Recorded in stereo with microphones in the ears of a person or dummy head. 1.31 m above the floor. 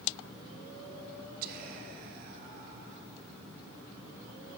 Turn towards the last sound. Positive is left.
turn(degrees=-50)  # may be behind; listen again after turning